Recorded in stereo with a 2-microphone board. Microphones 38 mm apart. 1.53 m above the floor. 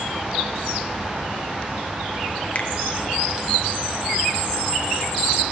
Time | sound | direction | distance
2.5 | a finger snap | 40° left (ahead or behind) | 1.0 m